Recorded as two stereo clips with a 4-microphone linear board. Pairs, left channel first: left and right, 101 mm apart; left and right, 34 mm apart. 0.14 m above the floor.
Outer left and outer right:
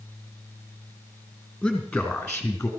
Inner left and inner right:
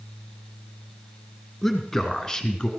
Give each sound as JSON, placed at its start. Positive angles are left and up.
{"t": 1.6, "sound": "a man speaking", "side_deg": 0, "distance_m": 2.5}